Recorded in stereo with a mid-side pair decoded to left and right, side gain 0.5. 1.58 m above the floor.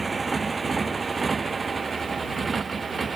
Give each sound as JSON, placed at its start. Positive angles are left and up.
{"t": 0.0, "sound": "a motorcycle", "azimuth_deg": -30}